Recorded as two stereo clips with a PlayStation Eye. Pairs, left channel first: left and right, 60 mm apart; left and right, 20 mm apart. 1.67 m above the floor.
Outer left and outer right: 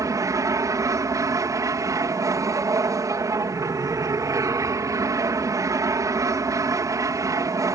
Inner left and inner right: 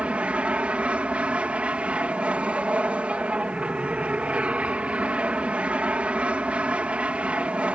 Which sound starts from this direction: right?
An aircraft, at 0.0 s.